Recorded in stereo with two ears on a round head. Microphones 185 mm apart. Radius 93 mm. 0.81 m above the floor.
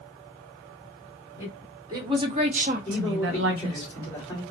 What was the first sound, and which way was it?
A woman speaking, 10° right (ahead or behind).